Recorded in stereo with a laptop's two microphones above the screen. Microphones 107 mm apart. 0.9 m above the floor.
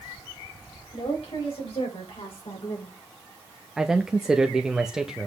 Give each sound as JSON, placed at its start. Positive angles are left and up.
{"t": 0.9, "sound": "a woman speaking", "side_deg": 80, "distance_m": 5.5}
{"t": 3.8, "sound": "a man speaking", "side_deg": -5, "distance_m": 0.8}